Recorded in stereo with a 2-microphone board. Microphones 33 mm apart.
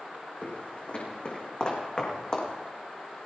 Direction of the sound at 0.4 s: 45° left (ahead or behind).